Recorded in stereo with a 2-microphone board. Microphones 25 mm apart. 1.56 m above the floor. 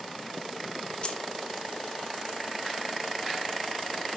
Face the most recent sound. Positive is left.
turn(degrees=40)  # may be behind; listen again after turning